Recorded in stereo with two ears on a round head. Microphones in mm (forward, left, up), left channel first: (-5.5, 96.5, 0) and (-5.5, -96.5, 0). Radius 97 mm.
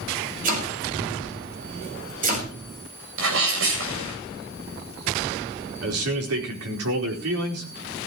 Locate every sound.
0.4 s chopping: 40° right (ahead or behind), 6 m
3.2 s a sneeze: 70° right (ahead or behind), 8 m
5.8 s a man speaking: 80° right, 4.5 m